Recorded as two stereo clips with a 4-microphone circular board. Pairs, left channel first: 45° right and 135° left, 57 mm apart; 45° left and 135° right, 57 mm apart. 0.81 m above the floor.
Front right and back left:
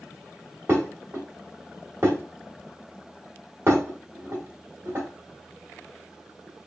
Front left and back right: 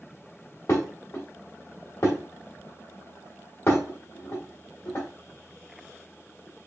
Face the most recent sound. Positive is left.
turn(degrees=90)